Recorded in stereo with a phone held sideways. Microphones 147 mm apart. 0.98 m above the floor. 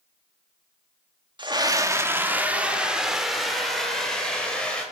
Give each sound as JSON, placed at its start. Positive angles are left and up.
{"t": 1.4, "sound": "a scream", "side_deg": -30, "distance_m": 2.0}